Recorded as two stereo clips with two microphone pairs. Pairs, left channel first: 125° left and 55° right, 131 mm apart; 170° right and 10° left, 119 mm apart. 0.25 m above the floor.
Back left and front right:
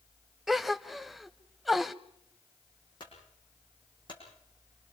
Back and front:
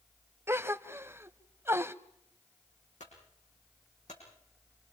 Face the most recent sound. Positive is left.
turn(degrees=175)